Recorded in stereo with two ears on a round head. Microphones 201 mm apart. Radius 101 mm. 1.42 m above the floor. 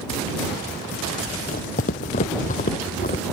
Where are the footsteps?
40° left (ahead or behind); by 3.2 s 35° left (ahead or behind).